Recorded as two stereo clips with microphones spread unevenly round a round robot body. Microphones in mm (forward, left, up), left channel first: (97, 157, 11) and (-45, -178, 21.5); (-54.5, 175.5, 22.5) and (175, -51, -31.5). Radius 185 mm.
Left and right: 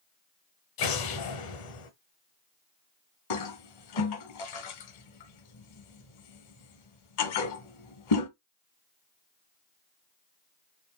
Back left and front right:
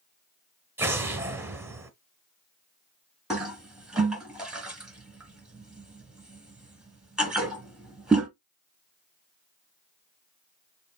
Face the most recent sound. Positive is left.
turn(degrees=45)